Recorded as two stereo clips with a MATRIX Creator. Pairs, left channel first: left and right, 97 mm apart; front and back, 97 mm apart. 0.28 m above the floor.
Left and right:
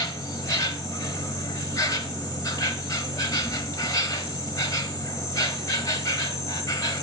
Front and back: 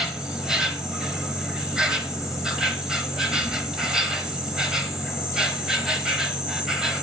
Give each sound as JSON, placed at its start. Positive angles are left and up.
{"t": 0.0, "sound": "an insect", "azimuth_deg": 100, "distance_m": 1.0}